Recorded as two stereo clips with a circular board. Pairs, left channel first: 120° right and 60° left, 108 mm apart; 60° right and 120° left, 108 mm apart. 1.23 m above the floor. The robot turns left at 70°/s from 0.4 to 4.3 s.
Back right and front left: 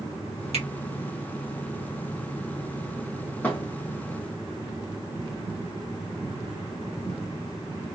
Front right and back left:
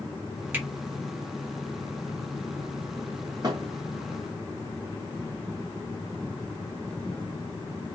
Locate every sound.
0.5 s a finger snap: 50° left, 2 m; by 0.7 s 40° left, 2 m
3.4 s a thud: 170° left, 1.9 m; by 3.7 s 150° left, 1.9 m